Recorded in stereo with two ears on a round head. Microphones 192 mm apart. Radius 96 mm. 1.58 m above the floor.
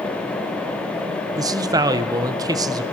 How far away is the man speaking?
About 0.8 m.